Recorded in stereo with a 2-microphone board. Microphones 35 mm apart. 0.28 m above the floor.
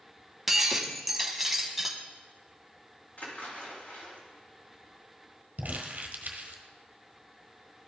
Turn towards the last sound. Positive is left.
turn(degrees=-55)  # may be behind; listen again after turning